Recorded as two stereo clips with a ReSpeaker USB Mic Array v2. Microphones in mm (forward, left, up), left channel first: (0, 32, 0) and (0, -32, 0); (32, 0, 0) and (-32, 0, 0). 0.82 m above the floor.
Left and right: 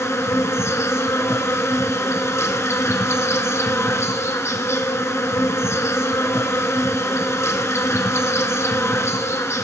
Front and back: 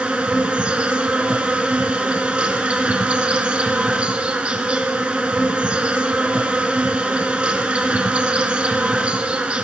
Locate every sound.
0.0 s an insect: 115° left, 1.1 m